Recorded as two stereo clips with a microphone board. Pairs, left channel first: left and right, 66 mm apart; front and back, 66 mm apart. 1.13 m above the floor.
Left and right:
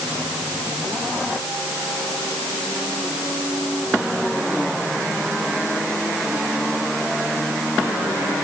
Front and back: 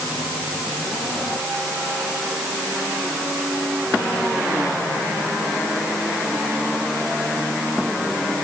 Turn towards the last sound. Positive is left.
No sound to turn to.